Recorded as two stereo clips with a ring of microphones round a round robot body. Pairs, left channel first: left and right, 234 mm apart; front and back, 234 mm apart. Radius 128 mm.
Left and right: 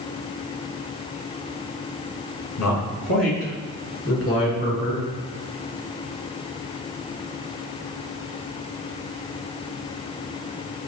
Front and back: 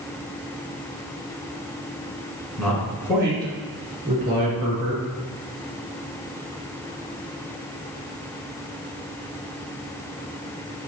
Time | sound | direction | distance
2.6 | a man speaking | 85° left | 4 m